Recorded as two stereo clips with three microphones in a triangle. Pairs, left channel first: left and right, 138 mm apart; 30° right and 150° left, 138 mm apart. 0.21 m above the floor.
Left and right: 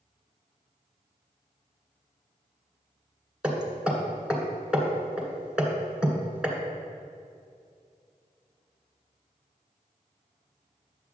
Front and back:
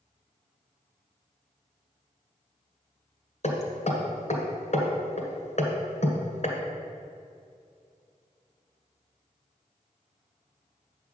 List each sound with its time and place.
3.4 s hammering: 10° right, 1.7 m